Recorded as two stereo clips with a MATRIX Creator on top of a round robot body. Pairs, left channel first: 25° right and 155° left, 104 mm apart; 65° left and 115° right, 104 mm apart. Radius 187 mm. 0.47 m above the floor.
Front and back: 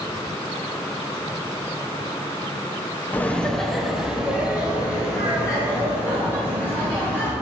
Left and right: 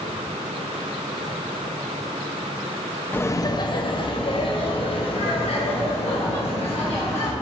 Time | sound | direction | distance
3.1 | laughter | 25° left | 0.7 m